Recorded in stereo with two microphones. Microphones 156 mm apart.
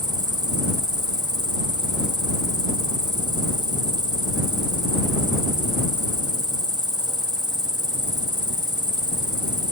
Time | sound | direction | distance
0.0 | an insect | 25° right (ahead or behind) | ?